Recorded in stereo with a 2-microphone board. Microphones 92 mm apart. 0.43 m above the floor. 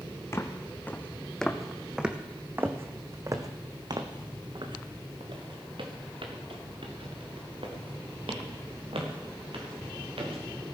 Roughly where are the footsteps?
Left.